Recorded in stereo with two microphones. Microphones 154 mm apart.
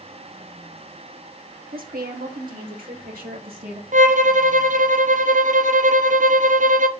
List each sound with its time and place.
1.7 s a woman speaking: 70° right (ahead or behind), 1.5 m
3.9 s a violin: 55° right (ahead or behind), 0.6 m